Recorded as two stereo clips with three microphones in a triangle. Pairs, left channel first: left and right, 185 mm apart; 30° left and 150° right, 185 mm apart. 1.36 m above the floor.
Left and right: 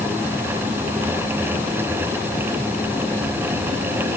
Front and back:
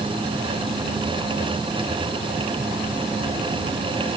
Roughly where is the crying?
I don't hear crying.